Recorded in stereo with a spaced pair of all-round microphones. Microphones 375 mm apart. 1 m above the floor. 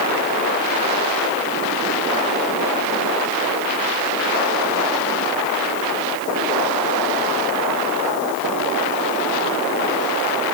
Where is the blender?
I don't hear a blender.